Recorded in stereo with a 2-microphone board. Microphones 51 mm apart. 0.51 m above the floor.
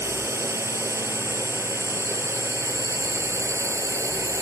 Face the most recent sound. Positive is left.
turn(degrees=-75)  # may be behind; listen again after turning